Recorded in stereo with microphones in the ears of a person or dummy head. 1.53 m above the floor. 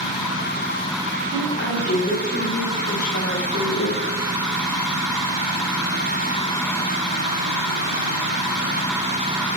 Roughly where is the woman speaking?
Left.